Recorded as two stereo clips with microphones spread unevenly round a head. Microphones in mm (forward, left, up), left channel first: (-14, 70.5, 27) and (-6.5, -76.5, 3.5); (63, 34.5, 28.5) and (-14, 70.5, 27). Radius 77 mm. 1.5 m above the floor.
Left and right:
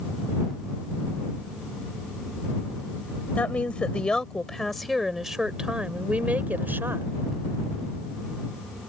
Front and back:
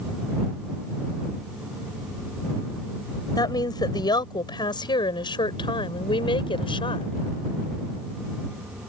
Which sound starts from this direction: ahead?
A woman speaking, at 3.4 s.